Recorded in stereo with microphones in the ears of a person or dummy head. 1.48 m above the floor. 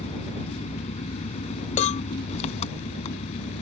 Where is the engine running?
40° left (ahead or behind).